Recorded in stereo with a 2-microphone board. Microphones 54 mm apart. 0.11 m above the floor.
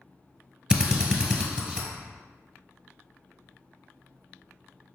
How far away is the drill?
About 1.0 m.